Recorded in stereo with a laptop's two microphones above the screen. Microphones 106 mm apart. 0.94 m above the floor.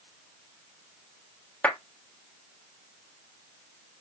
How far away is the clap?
About 1.4 m.